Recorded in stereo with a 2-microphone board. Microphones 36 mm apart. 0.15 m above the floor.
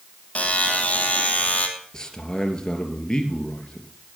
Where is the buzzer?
35° left (ahead or behind), 2.5 m.